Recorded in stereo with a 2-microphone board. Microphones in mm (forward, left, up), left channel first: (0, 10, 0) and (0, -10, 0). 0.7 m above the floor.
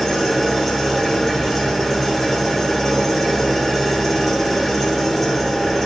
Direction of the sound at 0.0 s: 5° left (ahead or behind).